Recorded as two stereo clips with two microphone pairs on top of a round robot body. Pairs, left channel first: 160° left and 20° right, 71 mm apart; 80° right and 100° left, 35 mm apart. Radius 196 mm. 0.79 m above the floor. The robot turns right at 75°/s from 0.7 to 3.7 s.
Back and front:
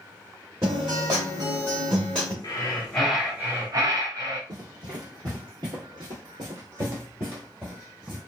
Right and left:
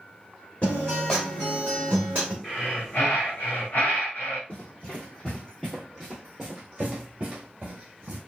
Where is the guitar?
65° right, 0.5 m; by 2.3 s 55° left, 0.5 m.